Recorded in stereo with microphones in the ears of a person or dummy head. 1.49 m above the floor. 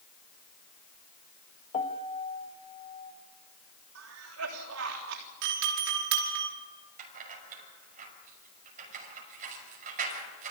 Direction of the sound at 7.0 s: 40° right (ahead or behind).